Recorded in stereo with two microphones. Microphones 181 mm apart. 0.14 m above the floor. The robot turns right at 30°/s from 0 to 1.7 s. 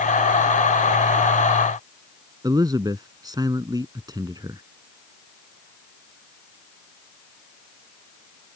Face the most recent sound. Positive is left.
turn(degrees=-25)  # may be behind; listen again after turning